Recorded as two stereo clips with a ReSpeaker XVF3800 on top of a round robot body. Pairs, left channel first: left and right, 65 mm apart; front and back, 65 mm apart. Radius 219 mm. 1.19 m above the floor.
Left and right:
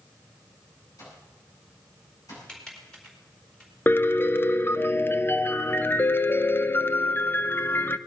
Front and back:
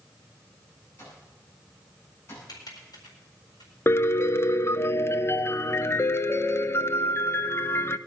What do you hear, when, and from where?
1.0 s an alarm clock: 55° left, 9.5 m
2.5 s typing on a keyboard: 10° left, 4 m
3.9 s a piano: 40° left, 0.8 m